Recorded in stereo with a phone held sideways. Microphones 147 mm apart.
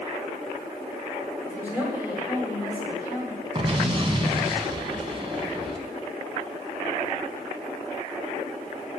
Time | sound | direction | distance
1.4 | a woman speaking | 15° right (ahead or behind) | 4.5 m
3.5 | an explosion | 40° right (ahead or behind) | 0.9 m